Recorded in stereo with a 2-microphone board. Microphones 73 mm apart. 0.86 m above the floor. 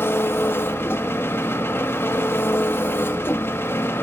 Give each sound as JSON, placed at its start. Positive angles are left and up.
{"t": 0.0, "sound": "an engine running", "side_deg": 30, "distance_m": 1.3}